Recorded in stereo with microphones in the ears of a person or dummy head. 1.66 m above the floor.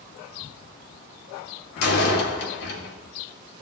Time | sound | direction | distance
1.8 | a door slam | 65° left (ahead or behind) | 2.5 m